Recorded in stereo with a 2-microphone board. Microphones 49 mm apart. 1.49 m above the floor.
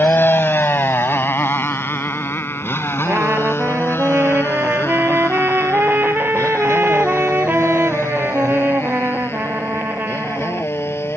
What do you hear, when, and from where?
0.0 s a motorcycle: 45° left (ahead or behind); by 11.2 s 60° left (ahead or behind)
3.1 s a trumpet: 45° right (ahead or behind)